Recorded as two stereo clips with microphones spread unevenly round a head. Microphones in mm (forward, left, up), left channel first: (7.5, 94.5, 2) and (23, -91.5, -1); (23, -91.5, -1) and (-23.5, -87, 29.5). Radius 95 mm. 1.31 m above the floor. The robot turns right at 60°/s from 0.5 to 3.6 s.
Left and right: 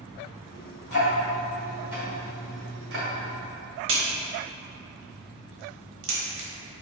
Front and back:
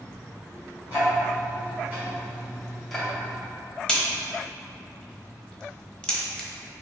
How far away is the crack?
About 1.1 m.